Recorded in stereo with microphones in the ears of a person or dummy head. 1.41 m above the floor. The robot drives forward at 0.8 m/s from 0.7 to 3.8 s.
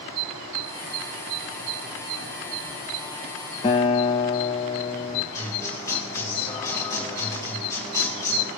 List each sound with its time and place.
3.6 s a guitar: 20° left (ahead or behind), 0.6 m
5.3 s a guitar: 20° left (ahead or behind), 3.5 m